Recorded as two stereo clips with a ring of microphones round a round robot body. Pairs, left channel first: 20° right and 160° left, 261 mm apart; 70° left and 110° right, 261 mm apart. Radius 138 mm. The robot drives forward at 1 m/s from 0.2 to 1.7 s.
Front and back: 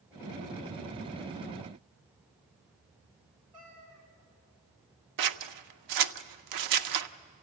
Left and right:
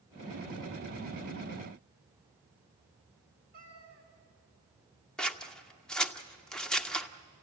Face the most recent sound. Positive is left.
turn(degrees=155)